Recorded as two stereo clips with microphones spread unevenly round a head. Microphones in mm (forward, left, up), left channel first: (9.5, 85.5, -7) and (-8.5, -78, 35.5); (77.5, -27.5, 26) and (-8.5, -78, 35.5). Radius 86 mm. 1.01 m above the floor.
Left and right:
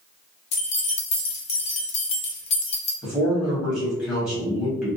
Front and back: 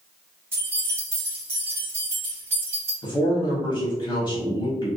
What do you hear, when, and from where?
0.5 s keys jangling: 135° left, 0.6 m
3.0 s a man speaking: 5° left, 1.1 m